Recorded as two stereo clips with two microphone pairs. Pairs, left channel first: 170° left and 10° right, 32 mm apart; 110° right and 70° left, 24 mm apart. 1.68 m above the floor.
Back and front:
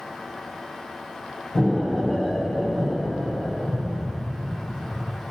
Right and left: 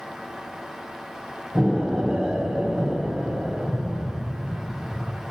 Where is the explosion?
115° left, 5.5 m.